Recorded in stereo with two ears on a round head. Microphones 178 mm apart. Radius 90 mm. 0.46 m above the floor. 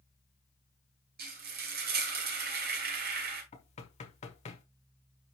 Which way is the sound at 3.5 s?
35° left (ahead or behind).